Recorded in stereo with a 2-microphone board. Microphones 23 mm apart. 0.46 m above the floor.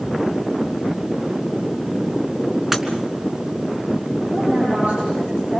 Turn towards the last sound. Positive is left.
turn(degrees=-70)  # may be behind; listen again after turning